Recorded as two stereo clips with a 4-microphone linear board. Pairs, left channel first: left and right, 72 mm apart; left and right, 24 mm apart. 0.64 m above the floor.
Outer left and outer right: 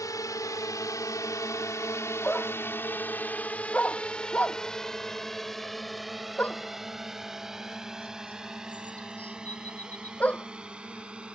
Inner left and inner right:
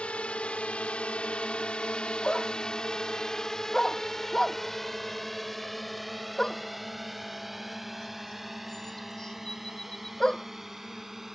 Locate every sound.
0.0 s a drone: 55° left (ahead or behind); by 11.3 s 15° right (ahead or behind)
2.2 s a dog barking: 20° left (ahead or behind)